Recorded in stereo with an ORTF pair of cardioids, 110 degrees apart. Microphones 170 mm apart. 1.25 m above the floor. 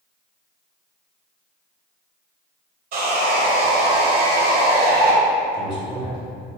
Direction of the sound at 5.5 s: 65° left.